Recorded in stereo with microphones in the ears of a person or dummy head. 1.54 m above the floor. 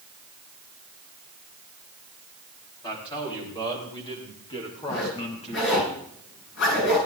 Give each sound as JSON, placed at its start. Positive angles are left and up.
{"t": 2.8, "sound": "a man speaking", "side_deg": 25, "distance_m": 6.0}
{"t": 4.9, "sound": "a zipper", "side_deg": 70, "distance_m": 9.5}